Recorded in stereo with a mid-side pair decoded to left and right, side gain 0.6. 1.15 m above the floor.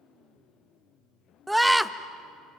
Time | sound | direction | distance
1.5 | a scream | 5° right | 1.1 m